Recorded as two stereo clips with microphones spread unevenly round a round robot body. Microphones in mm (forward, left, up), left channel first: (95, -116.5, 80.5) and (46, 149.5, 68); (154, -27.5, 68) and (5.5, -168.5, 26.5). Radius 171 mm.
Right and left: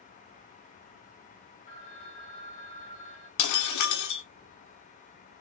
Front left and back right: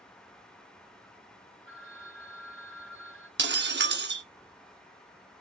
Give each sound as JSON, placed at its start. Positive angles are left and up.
{"t": 1.7, "sound": "a phone ringing", "azimuth_deg": -135, "distance_m": 2.5}
{"t": 3.4, "sound": "breaking glass", "azimuth_deg": -105, "distance_m": 1.3}